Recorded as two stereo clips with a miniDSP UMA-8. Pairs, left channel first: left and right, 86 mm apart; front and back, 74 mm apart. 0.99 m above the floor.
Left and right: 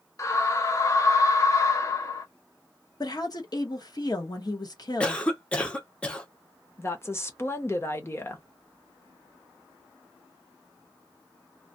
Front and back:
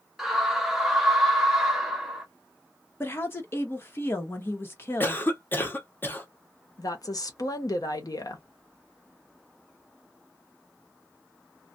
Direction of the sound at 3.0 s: 55° left.